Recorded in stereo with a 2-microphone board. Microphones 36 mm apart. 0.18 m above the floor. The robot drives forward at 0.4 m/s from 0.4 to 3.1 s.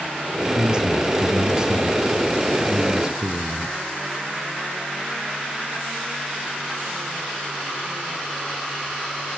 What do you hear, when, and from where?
0.6 s a man speaking: 25° right (ahead or behind), 1.7 m; by 3.8 s 20° right (ahead or behind), 2.5 m